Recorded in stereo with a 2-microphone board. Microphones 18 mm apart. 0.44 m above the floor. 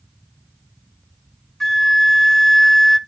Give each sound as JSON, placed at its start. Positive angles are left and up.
{"t": 1.6, "sound": "a flute", "side_deg": 5, "distance_m": 0.6}